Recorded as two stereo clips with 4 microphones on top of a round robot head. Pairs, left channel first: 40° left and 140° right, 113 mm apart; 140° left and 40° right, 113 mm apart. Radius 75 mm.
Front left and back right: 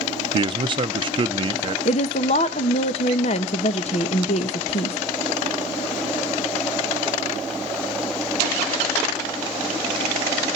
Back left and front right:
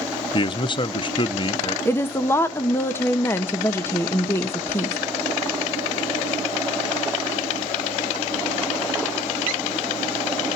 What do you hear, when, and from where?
0.3 s a man speaking: straight behind, 0.7 m
1.9 s a woman speaking: 70° left, 0.8 m